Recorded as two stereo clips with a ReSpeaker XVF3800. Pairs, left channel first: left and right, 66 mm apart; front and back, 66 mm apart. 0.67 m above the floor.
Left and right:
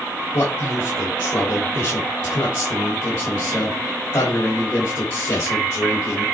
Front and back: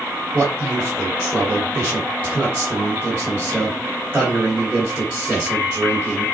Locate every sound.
0.3 s a man speaking: 115° left, 3 m